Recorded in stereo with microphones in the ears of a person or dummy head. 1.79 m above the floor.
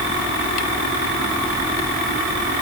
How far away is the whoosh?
I don't hear a whoosh.